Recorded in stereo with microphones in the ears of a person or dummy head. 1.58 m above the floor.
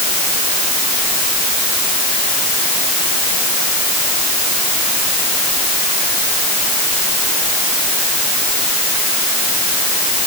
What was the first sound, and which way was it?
Only background noise.